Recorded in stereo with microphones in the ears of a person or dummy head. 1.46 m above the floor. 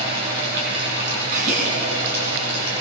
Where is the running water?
55° right (ahead or behind), 8.5 m.